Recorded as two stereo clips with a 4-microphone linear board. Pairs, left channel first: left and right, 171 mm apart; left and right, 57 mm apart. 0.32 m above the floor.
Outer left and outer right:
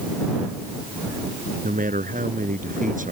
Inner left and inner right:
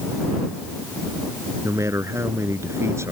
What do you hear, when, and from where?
1.6 s a man speaking: 50° right (ahead or behind)